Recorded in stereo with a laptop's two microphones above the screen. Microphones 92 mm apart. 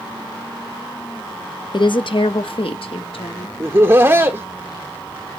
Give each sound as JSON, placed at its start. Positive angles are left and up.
{"t": 1.7, "sound": "a woman speaking", "side_deg": 55, "distance_m": 0.8}
{"t": 3.6, "sound": "laughter", "side_deg": -30, "distance_m": 0.9}